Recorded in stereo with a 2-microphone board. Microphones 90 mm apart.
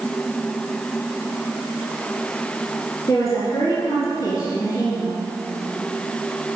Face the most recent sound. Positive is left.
turn(degrees=45)  # may be behind; listen again after turning